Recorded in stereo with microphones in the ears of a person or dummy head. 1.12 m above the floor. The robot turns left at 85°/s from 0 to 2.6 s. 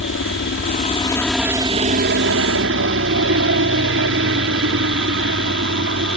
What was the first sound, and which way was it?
A helicopter, 115° left.